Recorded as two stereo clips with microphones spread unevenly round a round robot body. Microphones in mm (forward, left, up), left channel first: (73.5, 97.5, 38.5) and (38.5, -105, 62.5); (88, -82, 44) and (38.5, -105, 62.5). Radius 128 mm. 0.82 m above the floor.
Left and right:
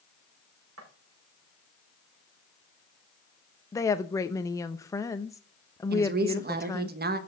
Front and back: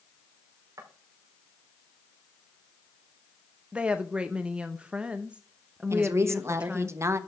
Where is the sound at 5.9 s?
120° right, 1.2 m.